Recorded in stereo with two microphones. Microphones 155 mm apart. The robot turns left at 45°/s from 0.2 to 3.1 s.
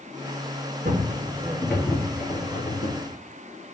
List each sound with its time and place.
0.8 s footsteps: 75° right (ahead or behind), 0.9 m; by 3.0 s 80° left, 1.0 m